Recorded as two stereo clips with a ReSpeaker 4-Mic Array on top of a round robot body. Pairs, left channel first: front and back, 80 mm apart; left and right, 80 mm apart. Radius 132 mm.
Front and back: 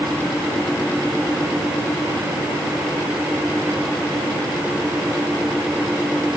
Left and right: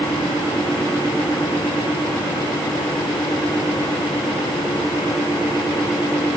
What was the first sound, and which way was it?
Only background noise.